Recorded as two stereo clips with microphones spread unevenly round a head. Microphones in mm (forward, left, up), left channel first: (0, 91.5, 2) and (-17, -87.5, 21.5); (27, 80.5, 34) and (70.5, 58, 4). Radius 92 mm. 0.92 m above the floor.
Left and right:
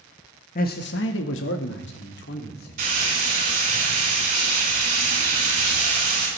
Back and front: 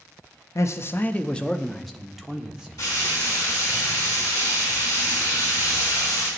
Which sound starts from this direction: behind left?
A man speaking, at 0.6 s.